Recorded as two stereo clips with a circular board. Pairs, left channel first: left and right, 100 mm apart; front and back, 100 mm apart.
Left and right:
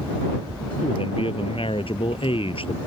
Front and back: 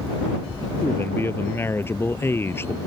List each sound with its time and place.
0.8 s a man speaking: 65° left